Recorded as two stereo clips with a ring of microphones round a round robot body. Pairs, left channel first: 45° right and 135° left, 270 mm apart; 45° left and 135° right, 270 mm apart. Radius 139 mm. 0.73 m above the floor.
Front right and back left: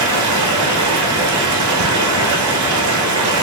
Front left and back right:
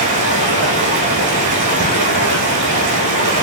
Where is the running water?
165° left, 1.2 m.